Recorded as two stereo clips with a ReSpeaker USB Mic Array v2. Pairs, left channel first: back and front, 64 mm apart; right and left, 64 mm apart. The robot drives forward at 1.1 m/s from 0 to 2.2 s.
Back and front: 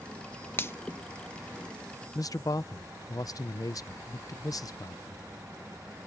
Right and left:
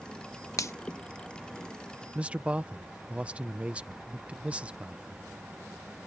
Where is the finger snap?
125° right; by 0.7 s 135° right.